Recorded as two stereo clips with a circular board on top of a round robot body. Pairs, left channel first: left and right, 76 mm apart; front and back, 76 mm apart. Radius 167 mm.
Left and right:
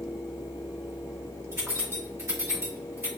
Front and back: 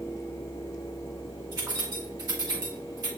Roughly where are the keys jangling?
Behind right.